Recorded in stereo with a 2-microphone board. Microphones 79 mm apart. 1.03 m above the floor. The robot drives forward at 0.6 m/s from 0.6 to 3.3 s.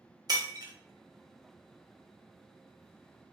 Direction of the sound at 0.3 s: 50° right (ahead or behind).